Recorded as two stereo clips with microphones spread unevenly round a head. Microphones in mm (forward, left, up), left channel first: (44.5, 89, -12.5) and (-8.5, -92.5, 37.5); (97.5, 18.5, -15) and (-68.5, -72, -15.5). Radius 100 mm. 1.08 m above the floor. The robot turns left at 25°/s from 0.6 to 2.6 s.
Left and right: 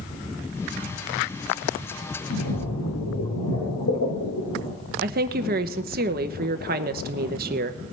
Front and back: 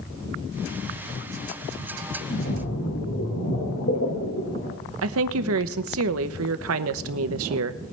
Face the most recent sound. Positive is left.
turn(degrees=-155)